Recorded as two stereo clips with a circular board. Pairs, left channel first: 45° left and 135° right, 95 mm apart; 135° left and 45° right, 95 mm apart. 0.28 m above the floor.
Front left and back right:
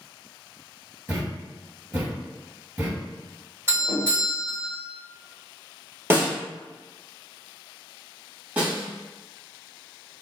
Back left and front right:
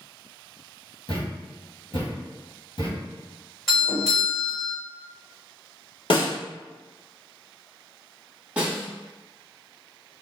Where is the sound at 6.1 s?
160° left, 1.5 m.